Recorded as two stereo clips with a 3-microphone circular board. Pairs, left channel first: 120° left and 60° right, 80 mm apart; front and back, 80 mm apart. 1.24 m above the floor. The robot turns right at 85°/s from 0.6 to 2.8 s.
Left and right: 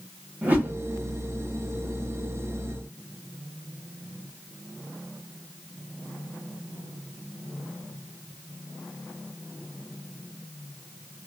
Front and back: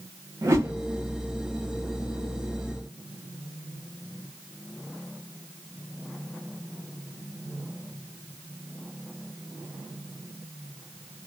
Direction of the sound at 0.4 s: 130° right.